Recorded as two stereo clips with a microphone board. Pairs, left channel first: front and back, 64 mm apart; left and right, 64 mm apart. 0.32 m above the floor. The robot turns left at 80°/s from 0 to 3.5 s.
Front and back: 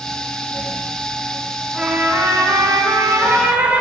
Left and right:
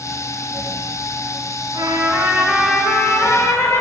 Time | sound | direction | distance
1.7 | a trumpet | 100° right | 0.9 m